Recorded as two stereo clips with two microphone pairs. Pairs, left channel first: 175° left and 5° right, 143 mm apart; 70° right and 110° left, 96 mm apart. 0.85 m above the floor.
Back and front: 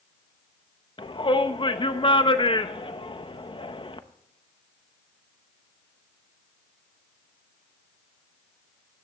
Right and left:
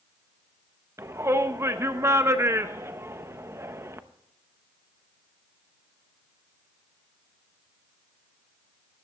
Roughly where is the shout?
Behind left.